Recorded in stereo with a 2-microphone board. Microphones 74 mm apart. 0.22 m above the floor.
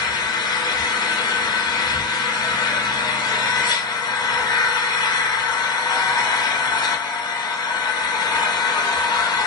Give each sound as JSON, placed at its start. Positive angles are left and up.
{"t": 0.0, "sound": "an engine running", "side_deg": 70, "distance_m": 0.9}